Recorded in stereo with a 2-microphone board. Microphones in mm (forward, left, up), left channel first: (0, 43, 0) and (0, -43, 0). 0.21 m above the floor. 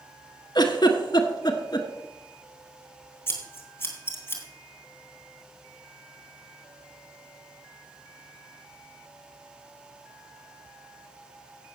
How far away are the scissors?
About 2.5 m.